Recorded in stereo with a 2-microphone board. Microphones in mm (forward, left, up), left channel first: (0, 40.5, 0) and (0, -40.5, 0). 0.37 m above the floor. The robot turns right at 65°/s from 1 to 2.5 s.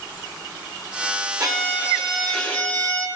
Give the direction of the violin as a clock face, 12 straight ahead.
2 o'clock.